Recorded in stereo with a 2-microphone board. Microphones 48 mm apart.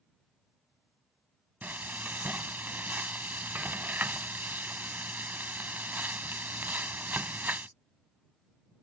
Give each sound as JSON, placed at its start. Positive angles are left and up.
{"t": 1.6, "sound": "frying", "side_deg": -40}